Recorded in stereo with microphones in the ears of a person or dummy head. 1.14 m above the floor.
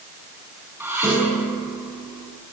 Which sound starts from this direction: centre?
Dishes clattering, at 0.8 s.